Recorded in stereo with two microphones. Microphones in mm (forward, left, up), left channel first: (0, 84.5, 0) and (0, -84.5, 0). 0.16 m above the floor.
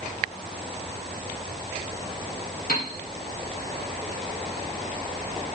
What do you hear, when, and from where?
2.7 s a piano: 60° left (ahead or behind), 3.5 m